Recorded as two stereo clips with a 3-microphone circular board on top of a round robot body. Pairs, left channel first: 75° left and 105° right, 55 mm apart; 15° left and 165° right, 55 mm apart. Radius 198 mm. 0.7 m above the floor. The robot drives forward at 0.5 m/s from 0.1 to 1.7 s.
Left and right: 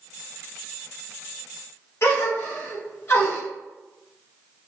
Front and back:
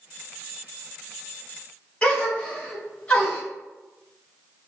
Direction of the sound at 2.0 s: 85° left.